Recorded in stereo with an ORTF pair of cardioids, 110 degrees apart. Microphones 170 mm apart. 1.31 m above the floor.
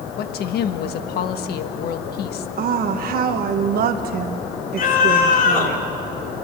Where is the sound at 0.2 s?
65° left, 1.6 m.